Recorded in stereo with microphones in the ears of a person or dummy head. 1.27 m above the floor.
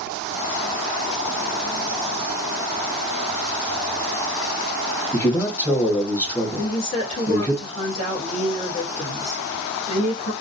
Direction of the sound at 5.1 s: 10° left (ahead or behind).